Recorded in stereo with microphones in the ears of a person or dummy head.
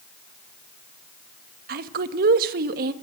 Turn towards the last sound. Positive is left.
turn(degrees=-55)  # may be behind; listen again after turning